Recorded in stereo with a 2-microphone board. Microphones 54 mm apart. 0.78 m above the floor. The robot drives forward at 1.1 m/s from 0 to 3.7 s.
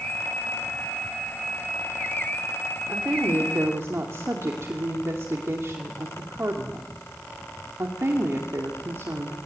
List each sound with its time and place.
2.9 s a woman speaking: 45° right (ahead or behind), 3 m; by 9.5 s 55° right (ahead or behind), 2.5 m